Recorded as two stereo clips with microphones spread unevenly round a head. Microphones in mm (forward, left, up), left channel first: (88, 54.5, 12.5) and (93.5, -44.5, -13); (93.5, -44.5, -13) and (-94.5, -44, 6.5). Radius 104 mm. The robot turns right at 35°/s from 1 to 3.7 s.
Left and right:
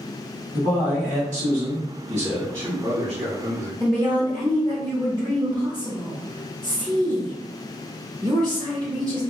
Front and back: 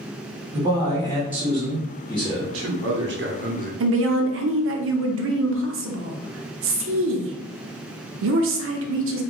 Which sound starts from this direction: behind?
A man speaking, at 2.4 s.